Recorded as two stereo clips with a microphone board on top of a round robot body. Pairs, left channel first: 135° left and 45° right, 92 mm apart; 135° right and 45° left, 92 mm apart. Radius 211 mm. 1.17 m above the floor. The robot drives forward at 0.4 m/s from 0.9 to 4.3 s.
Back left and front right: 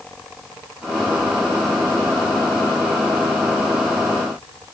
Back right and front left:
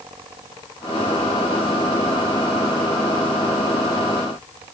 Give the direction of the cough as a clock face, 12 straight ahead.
No cough in this recording.